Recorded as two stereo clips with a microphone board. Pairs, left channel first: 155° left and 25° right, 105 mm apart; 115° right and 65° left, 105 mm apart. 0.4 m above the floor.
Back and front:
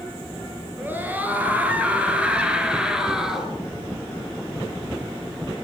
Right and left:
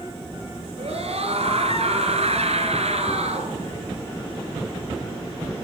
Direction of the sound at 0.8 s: 50° left.